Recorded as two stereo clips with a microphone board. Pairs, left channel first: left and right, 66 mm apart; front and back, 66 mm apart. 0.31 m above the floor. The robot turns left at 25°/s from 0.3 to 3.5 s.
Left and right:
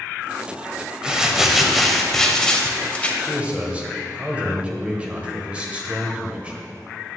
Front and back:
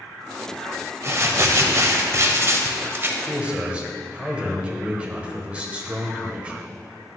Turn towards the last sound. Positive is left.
turn(degrees=-130)